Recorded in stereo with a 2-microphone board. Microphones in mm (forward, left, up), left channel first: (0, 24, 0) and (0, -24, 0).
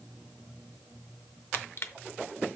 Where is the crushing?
55° left (ahead or behind), 0.6 m.